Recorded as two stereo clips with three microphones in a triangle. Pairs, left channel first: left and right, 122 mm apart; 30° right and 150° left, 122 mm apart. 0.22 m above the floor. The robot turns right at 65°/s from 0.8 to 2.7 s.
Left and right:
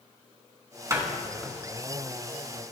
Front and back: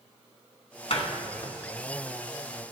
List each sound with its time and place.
0.9 s a door slam: 30° right, 1.6 m; by 1.5 s 10° left, 1.6 m